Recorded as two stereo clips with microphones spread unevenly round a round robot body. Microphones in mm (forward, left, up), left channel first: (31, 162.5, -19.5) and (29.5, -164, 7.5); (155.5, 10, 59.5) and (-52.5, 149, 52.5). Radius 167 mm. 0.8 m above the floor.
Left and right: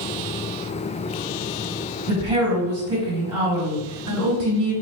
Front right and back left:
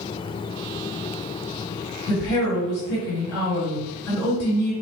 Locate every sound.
2.1 s a woman speaking: 60° right, 2.5 m